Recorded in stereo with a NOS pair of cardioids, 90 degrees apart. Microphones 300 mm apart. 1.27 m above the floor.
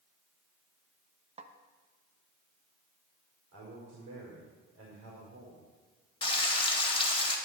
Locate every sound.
1.4 s a snare drum: 20° right, 1.0 m
3.5 s a man speaking: 60° right, 4.5 m
6.2 s frying: 20° left, 2 m